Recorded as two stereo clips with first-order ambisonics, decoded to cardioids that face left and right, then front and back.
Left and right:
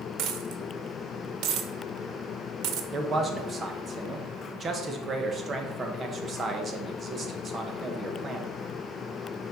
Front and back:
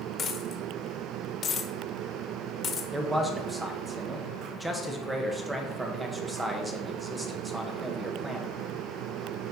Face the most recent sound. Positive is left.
turn(degrees=-115)